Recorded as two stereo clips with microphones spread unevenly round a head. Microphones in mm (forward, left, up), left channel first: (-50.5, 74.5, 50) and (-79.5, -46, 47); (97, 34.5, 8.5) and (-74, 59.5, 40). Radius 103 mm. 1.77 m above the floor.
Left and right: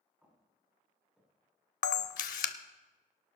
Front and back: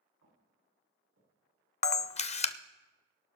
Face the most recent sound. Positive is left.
turn(degrees=50)